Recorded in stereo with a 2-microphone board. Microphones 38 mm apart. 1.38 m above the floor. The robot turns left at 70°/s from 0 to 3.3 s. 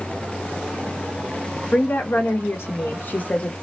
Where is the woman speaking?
145° left, 0.6 m; by 3.5 s 35° left, 0.6 m.